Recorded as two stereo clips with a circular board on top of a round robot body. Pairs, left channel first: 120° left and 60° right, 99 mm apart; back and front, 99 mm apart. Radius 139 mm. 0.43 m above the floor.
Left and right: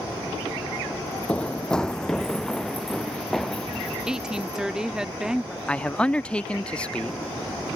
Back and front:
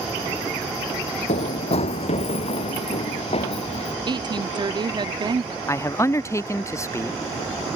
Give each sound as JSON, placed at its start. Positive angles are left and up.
{"t": 1.3, "sound": "running footsteps", "azimuth_deg": -160}
{"t": 4.1, "sound": "a woman speaking", "azimuth_deg": 20}
{"t": 5.7, "sound": "a man speaking", "azimuth_deg": -175}